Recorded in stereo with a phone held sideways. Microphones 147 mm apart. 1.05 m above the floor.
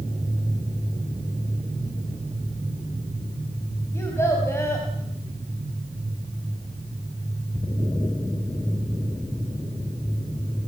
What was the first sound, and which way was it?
A child speaking, 20° left (ahead or behind).